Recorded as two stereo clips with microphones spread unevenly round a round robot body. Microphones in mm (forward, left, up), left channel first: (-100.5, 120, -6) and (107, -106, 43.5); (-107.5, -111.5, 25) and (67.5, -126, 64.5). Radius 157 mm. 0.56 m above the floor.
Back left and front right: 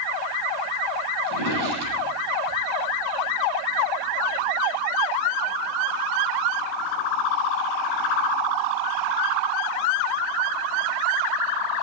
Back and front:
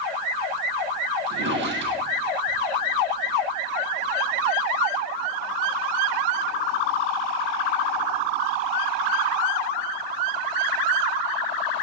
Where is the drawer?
15° right, 9 m.